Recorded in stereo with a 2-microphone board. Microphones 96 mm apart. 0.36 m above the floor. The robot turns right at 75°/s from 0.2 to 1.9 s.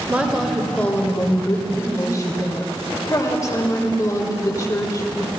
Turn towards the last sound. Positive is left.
turn(degrees=105)